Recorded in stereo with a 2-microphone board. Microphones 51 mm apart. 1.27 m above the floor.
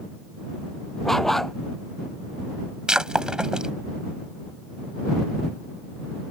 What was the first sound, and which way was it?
A dog barking, 5° left (ahead or behind).